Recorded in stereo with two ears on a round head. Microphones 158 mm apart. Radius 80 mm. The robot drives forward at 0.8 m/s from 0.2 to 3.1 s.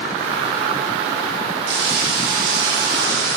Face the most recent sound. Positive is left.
turn(degrees=-65)  # may be behind; listen again after turning